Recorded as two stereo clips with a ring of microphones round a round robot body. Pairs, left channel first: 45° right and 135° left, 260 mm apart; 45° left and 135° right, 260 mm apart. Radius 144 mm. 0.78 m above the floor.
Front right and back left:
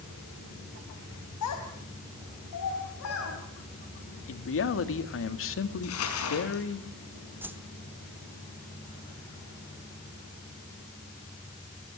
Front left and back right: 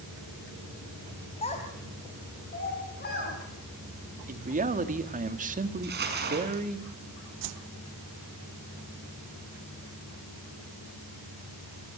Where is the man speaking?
80° right, 1.9 m.